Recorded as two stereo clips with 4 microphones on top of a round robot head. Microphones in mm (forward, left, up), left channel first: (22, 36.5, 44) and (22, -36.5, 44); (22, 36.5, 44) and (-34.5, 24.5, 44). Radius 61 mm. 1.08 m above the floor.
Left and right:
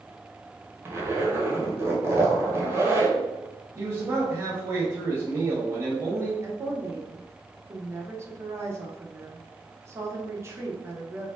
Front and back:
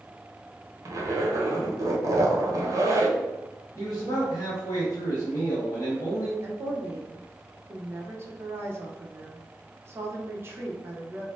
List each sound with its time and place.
0.8 s a zipper: 145° right, 1.2 m
3.8 s a man speaking: 35° right, 1.5 m
6.4 s a woman speaking: 135° right, 1.0 m